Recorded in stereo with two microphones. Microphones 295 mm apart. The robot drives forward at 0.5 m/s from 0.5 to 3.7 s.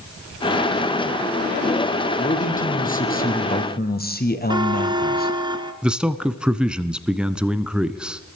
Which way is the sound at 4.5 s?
15° right (ahead or behind).